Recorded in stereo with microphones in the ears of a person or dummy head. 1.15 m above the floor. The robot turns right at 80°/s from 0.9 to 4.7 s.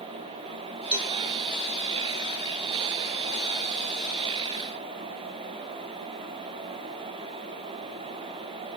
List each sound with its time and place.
0.9 s a cowbell: 5° right (ahead or behind), 1.9 m; by 1.1 s 10° left (ahead or behind), 1.9 m